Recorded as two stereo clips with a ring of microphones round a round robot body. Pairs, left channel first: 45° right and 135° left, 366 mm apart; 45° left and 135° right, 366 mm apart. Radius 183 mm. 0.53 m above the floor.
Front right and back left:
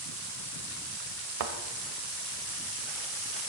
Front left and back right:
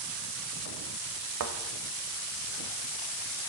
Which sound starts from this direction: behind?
A thud, at 1.4 s.